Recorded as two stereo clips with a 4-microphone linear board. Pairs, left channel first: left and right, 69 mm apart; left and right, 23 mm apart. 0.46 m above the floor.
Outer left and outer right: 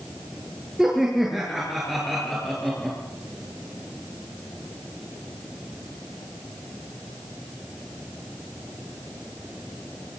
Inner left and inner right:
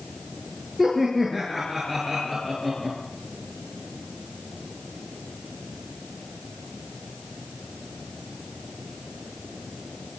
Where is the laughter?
5° right (ahead or behind), 6.5 m; by 3.0 s 5° left (ahead or behind), 6.5 m.